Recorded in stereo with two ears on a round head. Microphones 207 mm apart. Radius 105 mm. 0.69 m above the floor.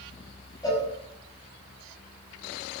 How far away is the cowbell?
About 5.5 m.